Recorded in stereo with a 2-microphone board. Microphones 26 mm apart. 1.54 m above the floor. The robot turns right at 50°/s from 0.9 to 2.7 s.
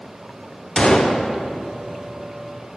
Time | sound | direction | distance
0.8 | a gunshot | 30° left (ahead or behind) | 0.6 m